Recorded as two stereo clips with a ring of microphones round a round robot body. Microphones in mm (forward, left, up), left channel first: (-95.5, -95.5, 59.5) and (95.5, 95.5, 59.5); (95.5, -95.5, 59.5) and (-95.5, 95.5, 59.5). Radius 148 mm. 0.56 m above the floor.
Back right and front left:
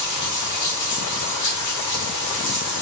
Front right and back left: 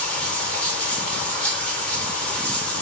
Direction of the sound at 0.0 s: 130° right.